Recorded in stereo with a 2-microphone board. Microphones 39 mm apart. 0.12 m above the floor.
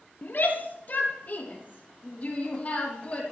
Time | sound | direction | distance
0.2 | a shout | 50° left (ahead or behind) | 3 m